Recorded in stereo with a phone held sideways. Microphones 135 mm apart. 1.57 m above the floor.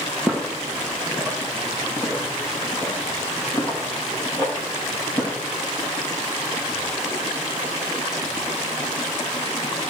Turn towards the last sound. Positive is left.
turn(degrees=35)  # may be behind; listen again after turning